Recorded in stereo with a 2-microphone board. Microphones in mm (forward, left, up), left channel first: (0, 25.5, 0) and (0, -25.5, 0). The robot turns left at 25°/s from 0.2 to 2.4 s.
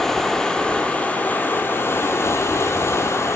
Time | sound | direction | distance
0.0 | running water | 170° left | 0.9 m